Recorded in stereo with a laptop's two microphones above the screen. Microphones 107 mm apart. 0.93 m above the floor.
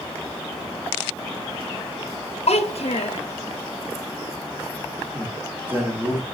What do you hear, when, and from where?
2.5 s a child speaking: 75° left (ahead or behind), 0.7 m
5.1 s a man speaking: 20° right (ahead or behind), 1.5 m